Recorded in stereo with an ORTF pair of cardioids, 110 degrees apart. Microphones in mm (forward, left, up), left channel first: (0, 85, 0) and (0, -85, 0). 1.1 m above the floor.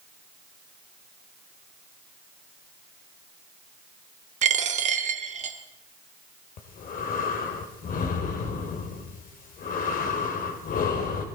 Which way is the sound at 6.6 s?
60° left.